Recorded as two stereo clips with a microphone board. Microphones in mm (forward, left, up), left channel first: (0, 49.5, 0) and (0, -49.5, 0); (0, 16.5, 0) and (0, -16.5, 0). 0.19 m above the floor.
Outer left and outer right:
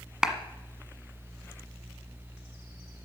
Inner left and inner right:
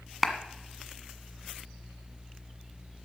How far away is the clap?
About 1.3 m.